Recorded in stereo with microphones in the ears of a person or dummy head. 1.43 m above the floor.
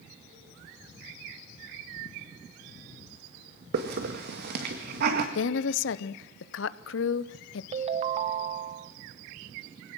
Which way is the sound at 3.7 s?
65° right (ahead or behind).